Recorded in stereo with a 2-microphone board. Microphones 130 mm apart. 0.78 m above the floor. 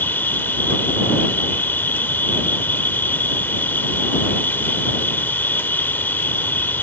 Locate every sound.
0.0 s an insect: 15° left (ahead or behind)